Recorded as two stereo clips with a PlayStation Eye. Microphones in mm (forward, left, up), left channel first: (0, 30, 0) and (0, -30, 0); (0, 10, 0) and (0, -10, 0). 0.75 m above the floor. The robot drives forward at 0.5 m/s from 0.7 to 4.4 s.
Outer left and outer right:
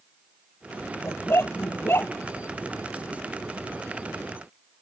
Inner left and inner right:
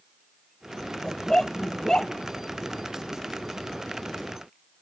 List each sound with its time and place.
1.0 s a dog barking: 45° left (ahead or behind); by 2.1 s 40° left (ahead or behind)